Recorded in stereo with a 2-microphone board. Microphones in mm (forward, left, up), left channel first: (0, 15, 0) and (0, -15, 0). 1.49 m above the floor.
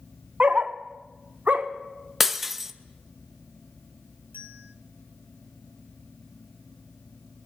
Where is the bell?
85° right, 2.5 m.